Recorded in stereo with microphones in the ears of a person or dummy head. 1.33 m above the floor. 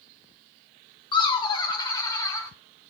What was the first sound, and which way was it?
Laughter, 30° left (ahead or behind).